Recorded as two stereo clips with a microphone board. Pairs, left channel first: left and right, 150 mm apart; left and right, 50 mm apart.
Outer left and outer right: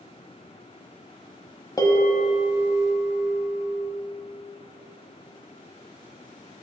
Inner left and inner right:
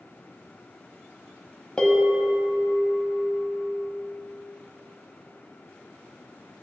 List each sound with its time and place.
1.8 s a bell: 25° left (ahead or behind), 1.3 m